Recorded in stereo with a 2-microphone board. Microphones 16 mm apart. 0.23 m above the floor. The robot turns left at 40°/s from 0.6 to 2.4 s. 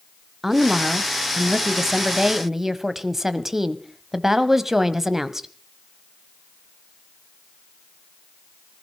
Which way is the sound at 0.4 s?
20° right (ahead or behind).